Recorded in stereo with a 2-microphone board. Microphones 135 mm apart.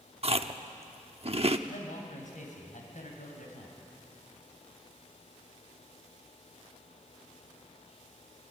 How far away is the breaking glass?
No breaking glass in this recording.